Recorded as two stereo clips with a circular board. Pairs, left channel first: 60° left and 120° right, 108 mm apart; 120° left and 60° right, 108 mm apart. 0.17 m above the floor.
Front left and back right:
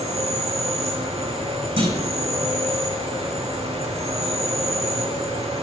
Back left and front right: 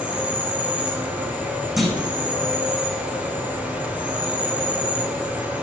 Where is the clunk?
150° right, 8.5 m.